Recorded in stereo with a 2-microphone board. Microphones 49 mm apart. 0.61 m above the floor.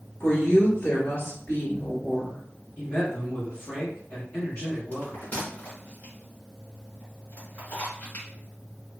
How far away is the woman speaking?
About 1.1 m.